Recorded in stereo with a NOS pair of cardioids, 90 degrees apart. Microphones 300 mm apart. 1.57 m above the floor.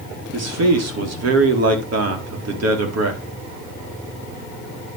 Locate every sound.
0.3 s a man speaking: 55° right, 4 m